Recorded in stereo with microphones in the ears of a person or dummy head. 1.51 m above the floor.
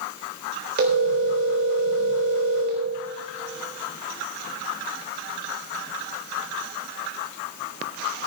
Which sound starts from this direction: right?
A phone ringing, at 0.8 s.